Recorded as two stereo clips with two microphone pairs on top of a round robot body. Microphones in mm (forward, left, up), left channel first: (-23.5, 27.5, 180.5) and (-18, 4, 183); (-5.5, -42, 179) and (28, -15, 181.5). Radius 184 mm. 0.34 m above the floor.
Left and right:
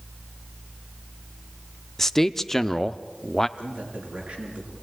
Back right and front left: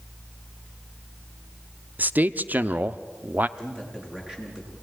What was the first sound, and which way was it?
A man speaking, 45° left.